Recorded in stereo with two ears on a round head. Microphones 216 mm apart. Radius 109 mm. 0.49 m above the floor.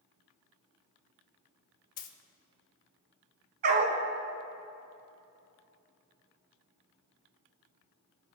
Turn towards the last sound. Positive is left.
turn(degrees=-40)  # may be behind; listen again after turning